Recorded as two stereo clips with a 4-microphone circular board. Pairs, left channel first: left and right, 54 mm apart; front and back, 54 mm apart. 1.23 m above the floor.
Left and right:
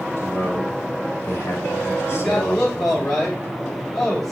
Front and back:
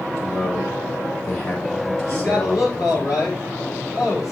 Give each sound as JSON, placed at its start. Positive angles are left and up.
{"t": 0.2, "sound": "a man speaking", "azimuth_deg": 40, "distance_m": 6.0}
{"t": 2.0, "sound": "a man speaking", "azimuth_deg": 5, "distance_m": 7.0}